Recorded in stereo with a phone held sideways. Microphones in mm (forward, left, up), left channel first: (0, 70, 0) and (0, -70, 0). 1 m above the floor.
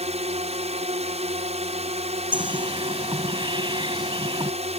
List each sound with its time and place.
0.0 s a drone: 50° right (ahead or behind)
2.3 s a bird: 35° right (ahead or behind)